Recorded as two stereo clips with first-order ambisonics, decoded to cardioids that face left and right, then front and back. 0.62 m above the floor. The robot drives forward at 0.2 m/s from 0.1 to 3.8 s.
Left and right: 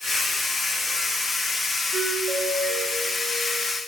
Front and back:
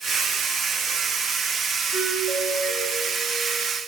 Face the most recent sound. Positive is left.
turn(degrees=-160)